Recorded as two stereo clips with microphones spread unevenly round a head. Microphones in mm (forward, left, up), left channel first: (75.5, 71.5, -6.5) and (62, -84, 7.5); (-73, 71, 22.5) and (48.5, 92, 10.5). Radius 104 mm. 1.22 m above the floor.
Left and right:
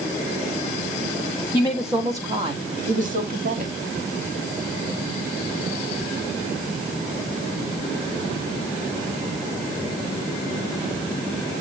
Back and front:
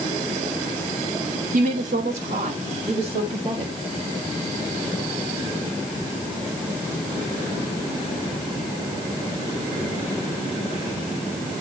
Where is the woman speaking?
5° left, 1.4 m; by 3.8 s 70° right, 2.5 m.